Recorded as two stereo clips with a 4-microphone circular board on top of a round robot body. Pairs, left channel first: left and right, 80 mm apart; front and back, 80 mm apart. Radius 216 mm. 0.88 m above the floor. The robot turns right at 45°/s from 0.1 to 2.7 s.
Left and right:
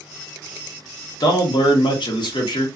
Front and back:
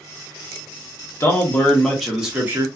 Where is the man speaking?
55° left, 1.1 m; by 2.7 s 120° left, 1.1 m.